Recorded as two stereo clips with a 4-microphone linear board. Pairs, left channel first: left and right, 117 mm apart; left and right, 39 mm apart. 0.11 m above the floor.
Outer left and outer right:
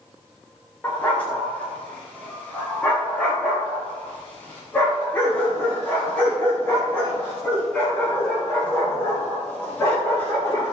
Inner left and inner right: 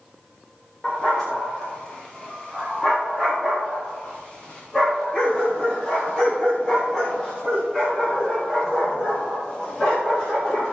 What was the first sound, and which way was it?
A dog barking, 10° left (ahead or behind).